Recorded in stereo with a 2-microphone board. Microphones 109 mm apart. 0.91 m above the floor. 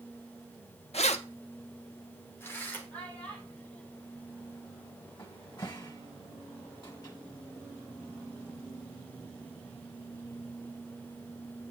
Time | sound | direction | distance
0.9 | keys jangling | 70° left (ahead or behind) | 0.8 m
2.9 | a child speaking | 15° left (ahead or behind) | 6.5 m
5.2 | a cupboard door | 40° left (ahead or behind) | 1.6 m